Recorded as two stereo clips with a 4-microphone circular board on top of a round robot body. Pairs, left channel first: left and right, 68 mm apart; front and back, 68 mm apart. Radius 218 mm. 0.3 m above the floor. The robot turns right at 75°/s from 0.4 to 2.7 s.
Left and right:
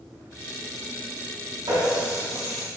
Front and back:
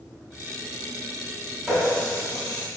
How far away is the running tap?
About 3.5 m.